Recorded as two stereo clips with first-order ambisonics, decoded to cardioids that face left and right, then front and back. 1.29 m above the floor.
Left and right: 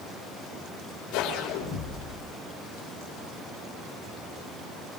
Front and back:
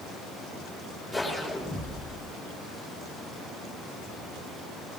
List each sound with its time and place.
1.1 s a whoosh: 90° left, 5 m